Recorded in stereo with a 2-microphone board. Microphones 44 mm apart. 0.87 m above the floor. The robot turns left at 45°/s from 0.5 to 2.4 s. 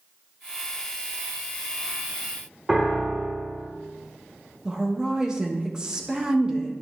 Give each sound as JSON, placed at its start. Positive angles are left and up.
{"t": 2.7, "sound": "a piano", "side_deg": -10, "distance_m": 1.5}
{"t": 4.7, "sound": "a woman speaking", "side_deg": -20, "distance_m": 1.1}